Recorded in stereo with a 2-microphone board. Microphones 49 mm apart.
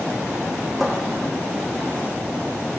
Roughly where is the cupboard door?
Centre.